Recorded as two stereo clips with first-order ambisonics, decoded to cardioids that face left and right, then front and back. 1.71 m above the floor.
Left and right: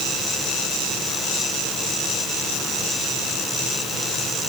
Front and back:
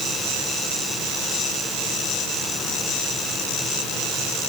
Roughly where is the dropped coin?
I don't hear a dropped coin.